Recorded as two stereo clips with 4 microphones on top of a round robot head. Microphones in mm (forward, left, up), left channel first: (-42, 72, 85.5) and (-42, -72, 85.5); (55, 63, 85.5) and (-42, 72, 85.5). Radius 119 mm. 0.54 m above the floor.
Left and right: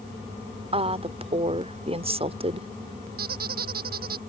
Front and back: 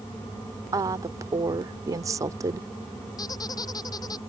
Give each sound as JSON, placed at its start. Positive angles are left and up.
{"t": 0.7, "sound": "a woman speaking", "azimuth_deg": -130}
{"t": 3.2, "sound": "a squeak", "azimuth_deg": -65}